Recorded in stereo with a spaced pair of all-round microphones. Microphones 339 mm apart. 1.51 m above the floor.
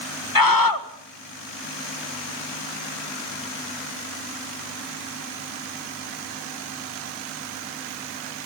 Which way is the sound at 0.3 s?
75° left (ahead or behind).